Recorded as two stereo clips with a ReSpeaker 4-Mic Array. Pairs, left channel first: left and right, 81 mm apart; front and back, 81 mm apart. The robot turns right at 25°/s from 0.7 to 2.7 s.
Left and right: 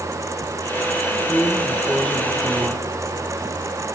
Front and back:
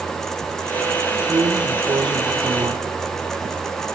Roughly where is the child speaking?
I don't hear a child speaking.